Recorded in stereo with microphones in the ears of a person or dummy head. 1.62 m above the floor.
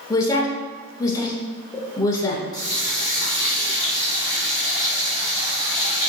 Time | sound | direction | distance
0.1 | a woman speaking | 20° left (ahead or behind) | 0.7 m
2.5 | a running tap | 30° left (ahead or behind) | 1.4 m